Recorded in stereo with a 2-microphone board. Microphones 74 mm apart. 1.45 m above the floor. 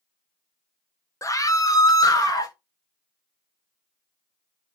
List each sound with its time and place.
1.2 s a scream: 45° left (ahead or behind), 0.6 m; by 2.5 s 55° left (ahead or behind), 1.2 m